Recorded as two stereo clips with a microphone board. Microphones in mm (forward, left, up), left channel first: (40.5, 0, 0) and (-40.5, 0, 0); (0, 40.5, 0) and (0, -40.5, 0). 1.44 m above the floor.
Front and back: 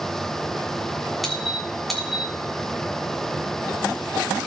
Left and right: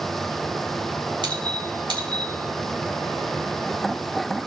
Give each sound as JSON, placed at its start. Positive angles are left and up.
{"t": 1.2, "sound": "a squeak", "azimuth_deg": -90, "distance_m": 3.0}